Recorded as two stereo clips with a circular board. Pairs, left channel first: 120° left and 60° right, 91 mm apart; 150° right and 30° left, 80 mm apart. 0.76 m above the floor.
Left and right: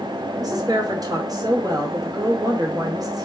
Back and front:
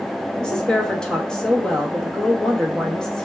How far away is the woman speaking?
About 0.9 m.